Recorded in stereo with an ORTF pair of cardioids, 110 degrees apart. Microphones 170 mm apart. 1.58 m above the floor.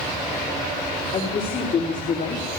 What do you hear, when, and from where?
1.1 s a woman speaking: 50° left, 4.5 m; by 2.5 s 65° left, 4.5 m